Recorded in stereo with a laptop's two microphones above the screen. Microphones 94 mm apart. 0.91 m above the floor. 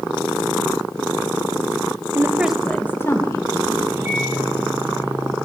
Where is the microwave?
25° right (ahead or behind), 3.5 m.